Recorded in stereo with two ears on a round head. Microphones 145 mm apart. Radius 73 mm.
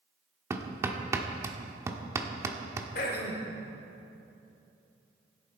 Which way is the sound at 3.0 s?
60° left (ahead or behind).